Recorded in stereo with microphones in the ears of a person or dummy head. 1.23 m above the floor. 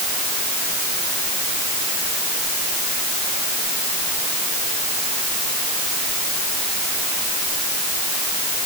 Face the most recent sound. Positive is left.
No sound to turn to.